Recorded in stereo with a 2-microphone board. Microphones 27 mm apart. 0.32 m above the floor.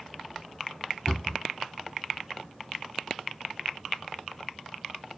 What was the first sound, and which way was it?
A cupboard door, 45° left (ahead or behind).